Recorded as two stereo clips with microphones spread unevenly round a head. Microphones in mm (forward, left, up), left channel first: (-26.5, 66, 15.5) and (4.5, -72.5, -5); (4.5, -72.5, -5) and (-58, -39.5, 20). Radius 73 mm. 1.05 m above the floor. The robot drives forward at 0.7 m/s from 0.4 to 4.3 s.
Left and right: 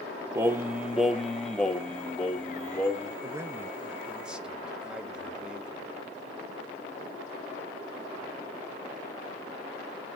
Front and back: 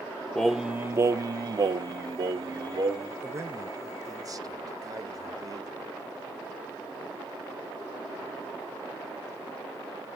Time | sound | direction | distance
0.3 | singing | 45° right | 0.5 m
3.2 | a man speaking | 145° right | 0.9 m